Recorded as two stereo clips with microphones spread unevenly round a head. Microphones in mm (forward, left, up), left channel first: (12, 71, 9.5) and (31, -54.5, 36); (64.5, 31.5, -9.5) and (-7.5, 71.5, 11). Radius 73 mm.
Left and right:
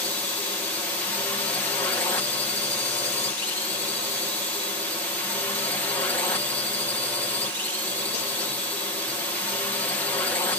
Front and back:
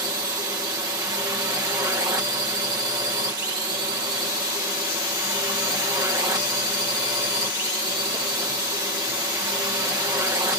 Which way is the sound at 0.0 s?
140° left.